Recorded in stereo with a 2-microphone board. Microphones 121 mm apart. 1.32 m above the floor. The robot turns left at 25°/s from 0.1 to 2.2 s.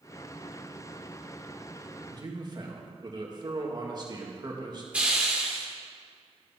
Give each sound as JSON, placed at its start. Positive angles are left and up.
{"t": 2.1, "sound": "a man speaking", "side_deg": -40, "distance_m": 2.0}
{"t": 4.9, "sound": "a hiss", "side_deg": -10, "distance_m": 2.0}